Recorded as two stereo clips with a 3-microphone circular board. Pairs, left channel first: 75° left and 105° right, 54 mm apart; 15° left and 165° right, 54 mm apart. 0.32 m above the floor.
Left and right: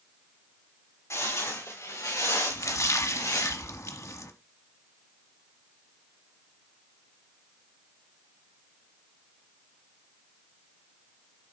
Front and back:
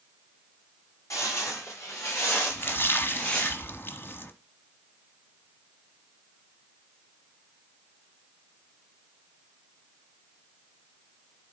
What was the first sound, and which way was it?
Footsteps, 45° left.